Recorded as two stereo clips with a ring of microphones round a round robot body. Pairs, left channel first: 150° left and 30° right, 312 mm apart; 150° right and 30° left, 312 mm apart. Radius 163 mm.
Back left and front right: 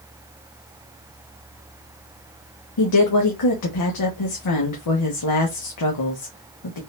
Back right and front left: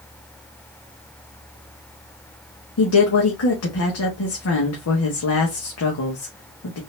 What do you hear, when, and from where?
2.8 s a woman speaking: 170° left, 1.1 m